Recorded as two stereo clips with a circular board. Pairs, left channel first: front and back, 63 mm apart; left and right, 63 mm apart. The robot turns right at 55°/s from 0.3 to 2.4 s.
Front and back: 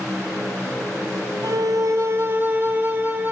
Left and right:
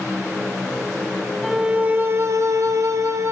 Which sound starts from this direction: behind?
A violin, at 1.4 s.